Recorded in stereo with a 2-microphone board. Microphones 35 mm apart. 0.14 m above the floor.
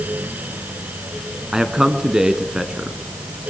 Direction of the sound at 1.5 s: 20° right (ahead or behind).